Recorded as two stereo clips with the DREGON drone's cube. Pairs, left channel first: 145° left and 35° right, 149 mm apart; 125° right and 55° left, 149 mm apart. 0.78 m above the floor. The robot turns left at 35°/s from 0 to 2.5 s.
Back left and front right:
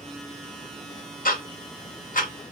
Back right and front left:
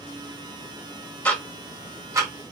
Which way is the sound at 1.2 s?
155° left.